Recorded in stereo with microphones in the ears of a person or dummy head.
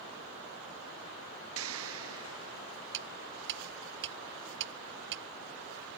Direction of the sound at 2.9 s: 65° right (ahead or behind).